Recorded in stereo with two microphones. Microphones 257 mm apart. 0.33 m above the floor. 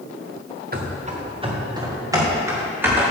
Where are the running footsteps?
35° right (ahead or behind), 1.8 m; by 3.0 s 5° right (ahead or behind), 5 m.